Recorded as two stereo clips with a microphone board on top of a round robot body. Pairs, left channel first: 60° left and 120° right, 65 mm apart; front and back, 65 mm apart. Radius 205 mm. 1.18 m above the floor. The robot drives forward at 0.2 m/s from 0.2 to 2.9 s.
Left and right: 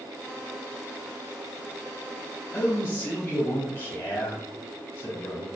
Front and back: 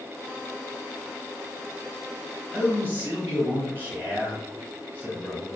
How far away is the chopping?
No chopping in this recording.